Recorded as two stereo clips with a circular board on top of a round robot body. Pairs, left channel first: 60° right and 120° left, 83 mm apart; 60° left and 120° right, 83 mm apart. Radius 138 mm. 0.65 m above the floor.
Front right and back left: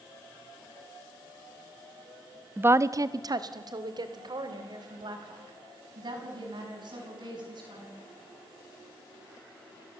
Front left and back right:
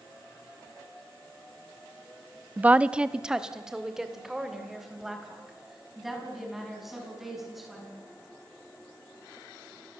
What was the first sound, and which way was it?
A woman speaking, straight behind.